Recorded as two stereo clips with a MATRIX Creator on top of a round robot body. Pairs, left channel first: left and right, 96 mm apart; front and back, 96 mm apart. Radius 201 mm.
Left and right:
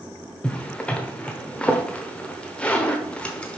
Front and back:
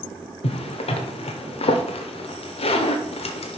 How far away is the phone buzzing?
No phone buzzing in this recording.